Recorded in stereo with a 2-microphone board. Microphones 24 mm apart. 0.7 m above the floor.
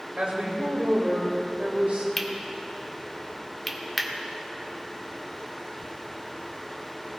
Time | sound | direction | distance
0.2 | a woman speaking | 60° right (ahead or behind) | 3.5 m
2.2 | cutlery clinking | 5° left (ahead or behind) | 1.1 m